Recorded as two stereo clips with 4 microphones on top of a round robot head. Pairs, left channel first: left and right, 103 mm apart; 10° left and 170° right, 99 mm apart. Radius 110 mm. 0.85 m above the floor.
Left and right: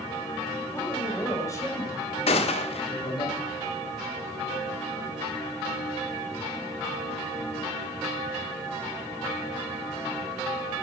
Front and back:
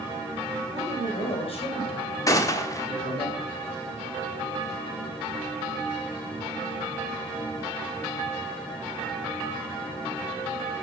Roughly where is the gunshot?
Ahead left.